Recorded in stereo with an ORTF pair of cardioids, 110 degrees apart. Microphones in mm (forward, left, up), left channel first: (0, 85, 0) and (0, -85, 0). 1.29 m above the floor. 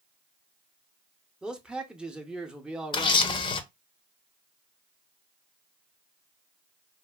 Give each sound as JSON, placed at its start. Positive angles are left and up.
{"t": 1.4, "sound": "a man speaking", "azimuth_deg": -5, "distance_m": 0.6}
{"t": 2.9, "sound": "a camera shutter", "azimuth_deg": 30, "distance_m": 0.5}